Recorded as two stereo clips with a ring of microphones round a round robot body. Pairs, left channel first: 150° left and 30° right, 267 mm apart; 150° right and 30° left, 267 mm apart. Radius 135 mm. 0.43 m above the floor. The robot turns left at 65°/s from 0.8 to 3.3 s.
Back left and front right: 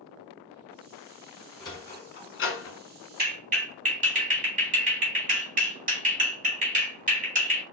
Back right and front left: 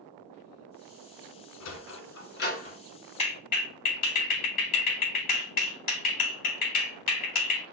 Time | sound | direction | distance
1.6 | a sliding door | 135° right | 1.1 m
3.2 | a clap | 85° right | 2.5 m